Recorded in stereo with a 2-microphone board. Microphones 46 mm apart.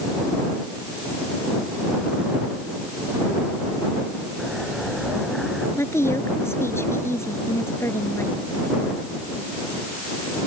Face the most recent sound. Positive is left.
turn(degrees=75)  # may be behind; listen again after turning